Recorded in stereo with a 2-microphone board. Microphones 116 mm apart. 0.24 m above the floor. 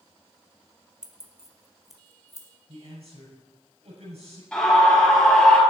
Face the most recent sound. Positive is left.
turn(degrees=10)  # may be behind; listen again after turning